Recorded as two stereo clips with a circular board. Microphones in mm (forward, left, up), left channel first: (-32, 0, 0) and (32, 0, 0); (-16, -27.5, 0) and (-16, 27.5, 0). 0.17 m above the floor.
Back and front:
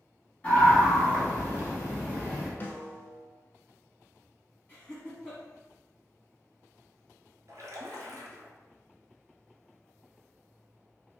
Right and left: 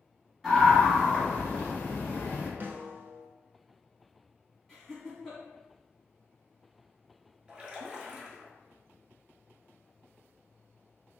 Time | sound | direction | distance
0.4 | a scream | 165° left | 1.3 m
2.6 | a snare drum | 130° left | 0.5 m
4.7 | laughter | 170° right | 1.5 m
7.5 | a splash | 25° left | 0.8 m